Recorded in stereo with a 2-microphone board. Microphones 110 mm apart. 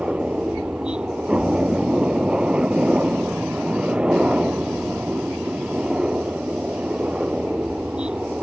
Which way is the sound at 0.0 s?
10° right (ahead or behind).